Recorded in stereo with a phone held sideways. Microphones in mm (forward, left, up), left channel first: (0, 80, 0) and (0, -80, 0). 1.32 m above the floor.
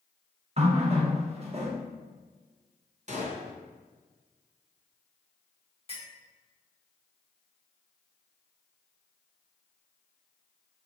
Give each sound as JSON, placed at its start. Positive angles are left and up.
{"t": 0.6, "sound": "a running tap", "side_deg": -40, "distance_m": 0.8}
{"t": 3.1, "sound": "a gunshot", "side_deg": -45, "distance_m": 0.8}
{"t": 5.9, "sound": "a clink", "side_deg": 35, "distance_m": 1.5}